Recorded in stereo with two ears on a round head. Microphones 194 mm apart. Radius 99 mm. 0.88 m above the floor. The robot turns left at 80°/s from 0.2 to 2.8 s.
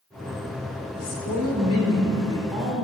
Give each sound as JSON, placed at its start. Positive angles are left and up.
{"t": 0.9, "sound": "a woman speaking", "azimuth_deg": 130, "distance_m": 3.5}